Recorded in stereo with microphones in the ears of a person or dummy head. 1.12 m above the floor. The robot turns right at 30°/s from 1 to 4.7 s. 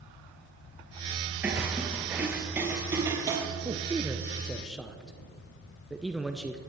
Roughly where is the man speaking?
Centre.